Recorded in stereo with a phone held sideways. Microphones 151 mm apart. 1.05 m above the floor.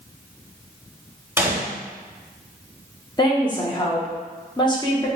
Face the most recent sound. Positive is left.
turn(degrees=30)  # may be behind; listen again after turning